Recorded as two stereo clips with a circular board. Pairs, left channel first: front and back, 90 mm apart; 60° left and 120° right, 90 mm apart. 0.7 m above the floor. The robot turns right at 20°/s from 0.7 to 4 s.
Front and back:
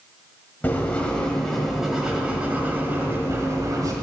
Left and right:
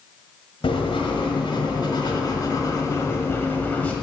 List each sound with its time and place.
0.6 s writing: 70° left, 1.8 m; by 3.9 s 135° left, 1.8 m